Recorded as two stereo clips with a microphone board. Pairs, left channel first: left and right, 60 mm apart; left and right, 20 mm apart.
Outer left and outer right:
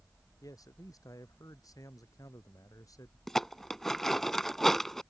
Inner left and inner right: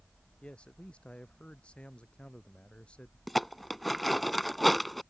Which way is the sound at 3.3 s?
5° left (ahead or behind).